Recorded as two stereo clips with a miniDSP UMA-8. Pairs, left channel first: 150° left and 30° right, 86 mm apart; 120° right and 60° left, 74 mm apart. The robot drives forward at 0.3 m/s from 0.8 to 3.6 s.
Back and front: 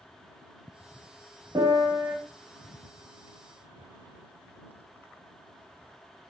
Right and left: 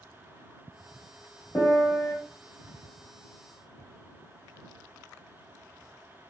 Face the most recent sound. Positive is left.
turn(degrees=-90)